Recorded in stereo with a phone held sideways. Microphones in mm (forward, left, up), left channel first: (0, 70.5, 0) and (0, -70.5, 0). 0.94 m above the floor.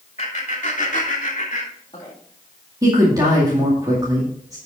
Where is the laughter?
50° left (ahead or behind), 2.5 m; by 2.1 s 35° left (ahead or behind), 2.5 m.